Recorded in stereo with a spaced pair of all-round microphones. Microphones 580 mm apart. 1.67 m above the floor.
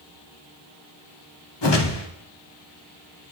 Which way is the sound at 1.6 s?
45° left (ahead or behind).